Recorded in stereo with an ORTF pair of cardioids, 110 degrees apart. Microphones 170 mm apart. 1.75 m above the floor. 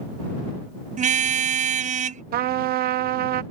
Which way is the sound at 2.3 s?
65° right.